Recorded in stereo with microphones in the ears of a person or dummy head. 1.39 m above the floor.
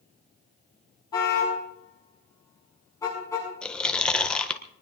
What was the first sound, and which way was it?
A car horn, 25° left (ahead or behind).